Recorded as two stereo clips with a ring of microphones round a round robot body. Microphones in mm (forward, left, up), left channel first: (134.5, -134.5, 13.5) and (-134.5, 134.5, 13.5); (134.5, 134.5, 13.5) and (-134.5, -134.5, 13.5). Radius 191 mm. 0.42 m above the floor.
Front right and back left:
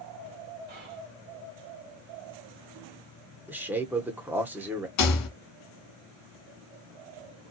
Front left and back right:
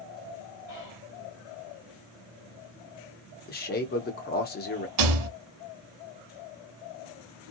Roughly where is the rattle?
Right.